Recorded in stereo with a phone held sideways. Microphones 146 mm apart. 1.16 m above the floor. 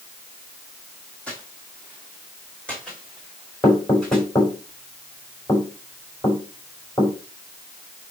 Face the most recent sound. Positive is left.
turn(degrees=20)  # may be behind; listen again after turning